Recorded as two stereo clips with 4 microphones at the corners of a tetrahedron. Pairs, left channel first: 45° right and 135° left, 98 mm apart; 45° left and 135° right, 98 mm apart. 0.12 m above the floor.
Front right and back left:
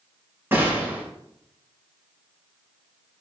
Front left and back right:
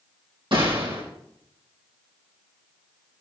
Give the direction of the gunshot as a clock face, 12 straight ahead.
5 o'clock.